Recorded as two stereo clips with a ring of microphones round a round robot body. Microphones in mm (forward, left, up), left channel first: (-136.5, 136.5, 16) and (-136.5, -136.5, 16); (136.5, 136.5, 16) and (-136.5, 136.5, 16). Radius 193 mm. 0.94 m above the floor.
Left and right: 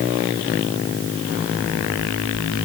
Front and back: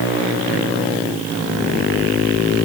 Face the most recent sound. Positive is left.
No sound to turn to.